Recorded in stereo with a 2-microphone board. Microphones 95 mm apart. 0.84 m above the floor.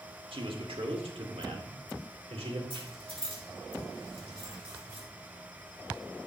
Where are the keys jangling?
65° right (ahead or behind), 5.5 m.